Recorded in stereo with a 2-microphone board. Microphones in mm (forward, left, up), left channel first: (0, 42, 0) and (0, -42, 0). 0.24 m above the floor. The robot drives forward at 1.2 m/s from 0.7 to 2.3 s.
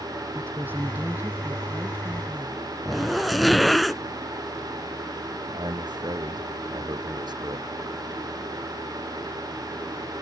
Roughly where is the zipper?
Centre.